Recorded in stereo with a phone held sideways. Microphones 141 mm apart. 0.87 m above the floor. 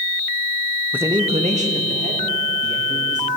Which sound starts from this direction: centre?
A man speaking, at 0.9 s.